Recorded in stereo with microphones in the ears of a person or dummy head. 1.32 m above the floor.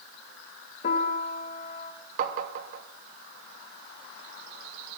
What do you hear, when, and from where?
0.8 s a piano: 45° left (ahead or behind), 1.1 m
2.2 s tapping: 40° right (ahead or behind), 0.8 m